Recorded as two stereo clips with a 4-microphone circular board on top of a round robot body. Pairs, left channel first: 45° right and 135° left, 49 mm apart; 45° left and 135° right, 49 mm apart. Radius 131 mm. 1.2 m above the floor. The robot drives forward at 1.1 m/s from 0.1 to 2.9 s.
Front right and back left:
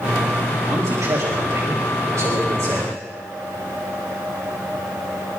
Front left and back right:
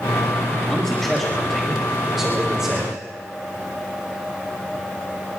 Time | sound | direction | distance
0.7 | a man speaking | 115° left | 3 m